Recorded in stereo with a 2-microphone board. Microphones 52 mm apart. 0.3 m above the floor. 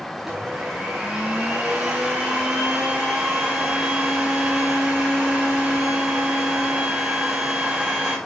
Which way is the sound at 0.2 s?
5° right (ahead or behind).